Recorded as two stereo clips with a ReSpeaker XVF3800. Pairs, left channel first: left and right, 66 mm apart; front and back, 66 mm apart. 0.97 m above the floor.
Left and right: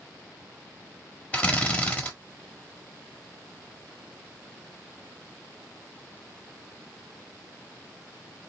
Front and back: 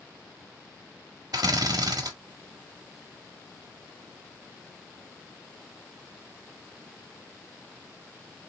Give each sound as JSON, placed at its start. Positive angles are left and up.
{"t": 1.3, "sound": "a drill", "azimuth_deg": 160, "distance_m": 1.2}